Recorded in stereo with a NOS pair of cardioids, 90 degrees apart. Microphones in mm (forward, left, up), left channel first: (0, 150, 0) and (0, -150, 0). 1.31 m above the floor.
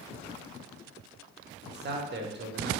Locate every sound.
1.6 s a man speaking: 35° right, 0.7 m